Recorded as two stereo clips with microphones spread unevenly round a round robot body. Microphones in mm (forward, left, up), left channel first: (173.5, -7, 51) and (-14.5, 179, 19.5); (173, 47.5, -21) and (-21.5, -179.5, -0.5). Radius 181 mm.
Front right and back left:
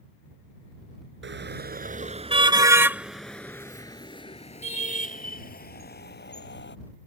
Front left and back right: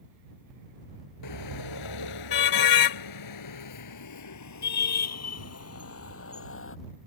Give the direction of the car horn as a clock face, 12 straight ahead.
9 o'clock.